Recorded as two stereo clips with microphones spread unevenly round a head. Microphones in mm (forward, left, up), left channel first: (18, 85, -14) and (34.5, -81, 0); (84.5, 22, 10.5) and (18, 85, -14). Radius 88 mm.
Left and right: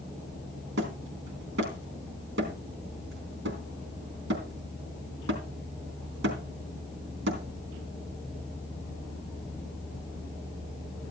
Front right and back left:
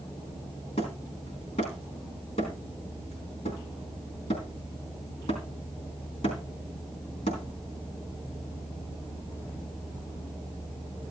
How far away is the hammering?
About 3.5 m.